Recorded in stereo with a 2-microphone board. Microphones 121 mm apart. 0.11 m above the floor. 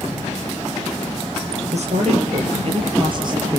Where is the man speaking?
60° right (ahead or behind), 3.5 m; by 3.6 s 25° right (ahead or behind), 2.5 m.